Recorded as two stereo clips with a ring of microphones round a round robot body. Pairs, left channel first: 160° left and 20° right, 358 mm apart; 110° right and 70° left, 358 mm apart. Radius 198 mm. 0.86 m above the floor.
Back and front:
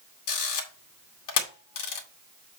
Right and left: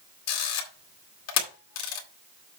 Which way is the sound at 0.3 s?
160° right.